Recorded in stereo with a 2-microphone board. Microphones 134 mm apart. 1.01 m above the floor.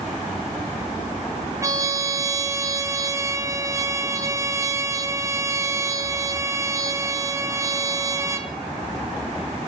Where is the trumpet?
25° right (ahead or behind), 0.9 m.